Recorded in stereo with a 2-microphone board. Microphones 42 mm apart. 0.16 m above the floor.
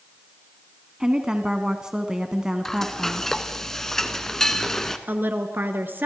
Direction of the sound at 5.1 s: 55° right (ahead or behind).